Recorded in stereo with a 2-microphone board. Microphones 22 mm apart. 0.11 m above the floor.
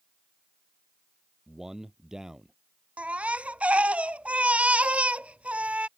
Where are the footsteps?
No footsteps in this recording.